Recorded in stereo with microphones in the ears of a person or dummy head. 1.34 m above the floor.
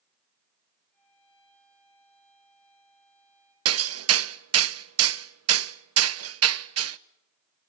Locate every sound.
0.9 s a violin: 10° left (ahead or behind), 6.5 m
3.6 s hammering: 80° right, 0.7 m